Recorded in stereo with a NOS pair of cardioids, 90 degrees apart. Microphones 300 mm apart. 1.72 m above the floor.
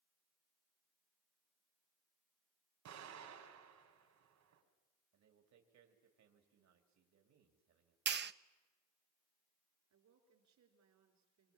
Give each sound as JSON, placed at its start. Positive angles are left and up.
{"t": 2.9, "sound": "an explosion", "azimuth_deg": -70, "distance_m": 5.0}
{"t": 5.1, "sound": "a man speaking", "azimuth_deg": -65, "distance_m": 3.5}
{"t": 8.1, "sound": "a clap", "azimuth_deg": -40, "distance_m": 0.8}
{"t": 9.9, "sound": "a woman speaking", "azimuth_deg": -65, "distance_m": 5.5}